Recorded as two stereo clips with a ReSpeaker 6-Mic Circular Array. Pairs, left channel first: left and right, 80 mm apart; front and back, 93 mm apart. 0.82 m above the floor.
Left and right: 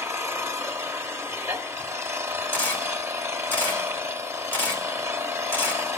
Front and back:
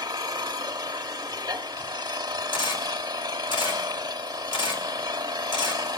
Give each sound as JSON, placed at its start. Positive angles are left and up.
{"t": 0.0, "sound": "an engine running", "azimuth_deg": -140, "distance_m": 0.9}
{"t": 2.5, "sound": "a camera shutter", "azimuth_deg": 25, "distance_m": 2.5}